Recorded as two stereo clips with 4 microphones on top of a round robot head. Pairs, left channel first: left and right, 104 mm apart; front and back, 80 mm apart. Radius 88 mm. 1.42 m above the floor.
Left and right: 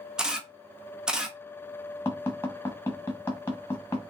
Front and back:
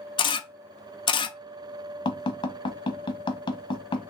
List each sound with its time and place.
0.2 s a camera shutter: 5° right, 0.7 m
2.0 s tapping: 15° left, 1.2 m